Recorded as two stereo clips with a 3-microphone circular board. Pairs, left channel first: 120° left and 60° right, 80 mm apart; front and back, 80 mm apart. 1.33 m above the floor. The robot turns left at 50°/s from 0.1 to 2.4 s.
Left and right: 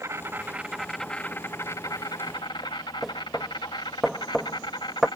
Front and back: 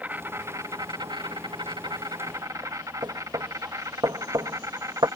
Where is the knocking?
150° right.